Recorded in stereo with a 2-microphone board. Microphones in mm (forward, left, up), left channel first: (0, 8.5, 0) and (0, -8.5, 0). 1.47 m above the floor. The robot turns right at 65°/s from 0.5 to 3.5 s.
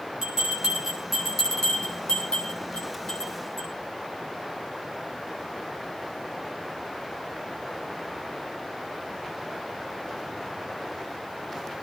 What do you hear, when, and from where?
0.2 s a bell: 50° right (ahead or behind), 8 m; by 3.7 s 35° left (ahead or behind), 8 m